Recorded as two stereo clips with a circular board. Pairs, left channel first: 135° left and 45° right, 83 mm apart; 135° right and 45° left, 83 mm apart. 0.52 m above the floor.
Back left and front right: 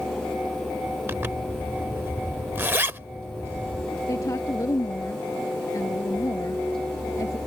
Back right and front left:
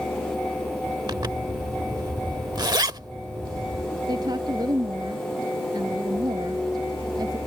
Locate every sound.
1.1 s a zipper: 15° left
4.1 s a woman speaking: 85° left